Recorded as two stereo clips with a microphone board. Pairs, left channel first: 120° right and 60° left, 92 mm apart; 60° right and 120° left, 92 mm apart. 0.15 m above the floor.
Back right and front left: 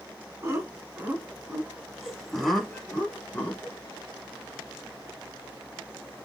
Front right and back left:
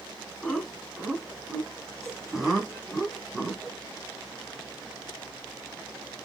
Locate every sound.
0.4 s laughter: 30° left, 1.7 m; by 3.8 s 155° right, 1.6 m